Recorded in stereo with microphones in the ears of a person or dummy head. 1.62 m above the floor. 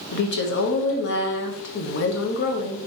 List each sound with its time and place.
0.1 s a woman speaking: 55° left (ahead or behind), 0.8 m